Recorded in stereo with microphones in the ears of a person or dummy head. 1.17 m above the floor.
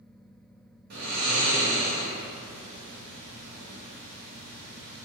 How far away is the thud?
I don't hear a thud.